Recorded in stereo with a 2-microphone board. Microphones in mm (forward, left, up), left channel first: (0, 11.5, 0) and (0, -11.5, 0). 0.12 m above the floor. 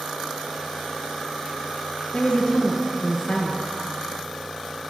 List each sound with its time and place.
2.1 s a woman speaking: 30° left (ahead or behind), 1.9 m